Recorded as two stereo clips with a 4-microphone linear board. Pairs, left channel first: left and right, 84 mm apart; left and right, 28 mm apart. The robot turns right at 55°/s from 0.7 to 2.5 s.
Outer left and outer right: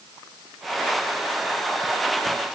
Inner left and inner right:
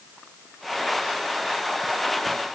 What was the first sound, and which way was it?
Only background noise.